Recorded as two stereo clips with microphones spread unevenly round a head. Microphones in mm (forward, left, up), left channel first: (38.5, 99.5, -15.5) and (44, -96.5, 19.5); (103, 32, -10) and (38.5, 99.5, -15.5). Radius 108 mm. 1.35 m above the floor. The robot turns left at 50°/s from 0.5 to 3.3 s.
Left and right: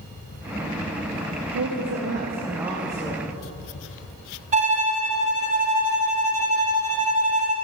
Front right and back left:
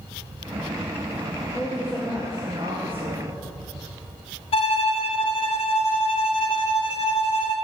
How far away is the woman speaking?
About 0.9 m.